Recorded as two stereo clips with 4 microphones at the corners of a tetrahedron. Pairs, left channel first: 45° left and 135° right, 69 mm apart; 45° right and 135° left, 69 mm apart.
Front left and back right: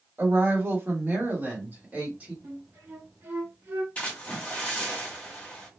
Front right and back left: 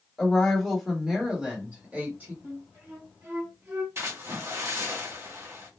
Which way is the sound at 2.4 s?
170° left.